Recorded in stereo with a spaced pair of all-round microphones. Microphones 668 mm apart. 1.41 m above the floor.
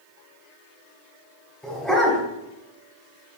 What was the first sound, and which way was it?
A dog barking, centre (ahead or behind).